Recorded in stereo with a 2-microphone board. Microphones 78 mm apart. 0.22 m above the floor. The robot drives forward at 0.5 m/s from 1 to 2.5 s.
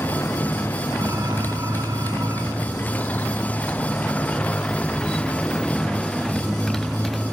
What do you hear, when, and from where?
0.0 s a motorcycle: 30° left (ahead or behind); by 7.3 s centre (ahead or behind)